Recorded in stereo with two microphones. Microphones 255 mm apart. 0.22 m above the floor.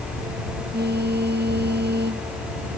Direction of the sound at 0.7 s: 40° right (ahead or behind).